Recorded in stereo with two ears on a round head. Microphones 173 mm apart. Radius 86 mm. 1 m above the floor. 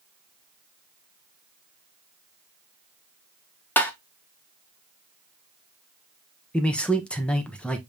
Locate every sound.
3.8 s tapping: 10° left (ahead or behind), 0.7 m
6.5 s a man speaking: 5° left (ahead or behind), 0.8 m